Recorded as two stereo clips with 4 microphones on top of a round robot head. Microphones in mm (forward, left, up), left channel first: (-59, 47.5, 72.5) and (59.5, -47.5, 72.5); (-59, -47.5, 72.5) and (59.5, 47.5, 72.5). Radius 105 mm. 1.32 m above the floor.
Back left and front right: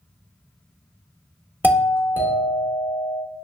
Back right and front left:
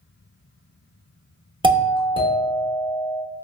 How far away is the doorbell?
About 0.8 m.